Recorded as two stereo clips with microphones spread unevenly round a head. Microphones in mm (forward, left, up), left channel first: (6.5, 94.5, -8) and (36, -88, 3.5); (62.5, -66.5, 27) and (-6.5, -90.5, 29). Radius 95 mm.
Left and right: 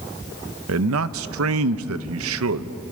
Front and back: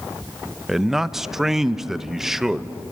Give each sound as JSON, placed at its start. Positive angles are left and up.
{"t": 0.7, "sound": "a man speaking", "azimuth_deg": -75, "distance_m": 0.8}